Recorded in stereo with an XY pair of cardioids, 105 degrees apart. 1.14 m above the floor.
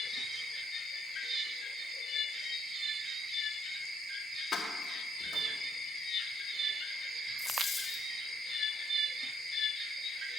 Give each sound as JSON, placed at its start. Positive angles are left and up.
{"t": 4.5, "sound": "keys jangling", "azimuth_deg": 35, "distance_m": 1.6}
{"t": 7.4, "sound": "a dropped coin", "azimuth_deg": 20, "distance_m": 1.6}